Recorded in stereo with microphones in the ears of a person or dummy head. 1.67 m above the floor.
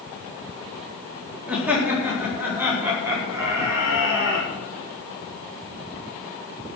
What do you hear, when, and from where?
1.5 s laughter: 10° right (ahead or behind), 3.5 m; by 4.5 s 20° right (ahead or behind), 5 m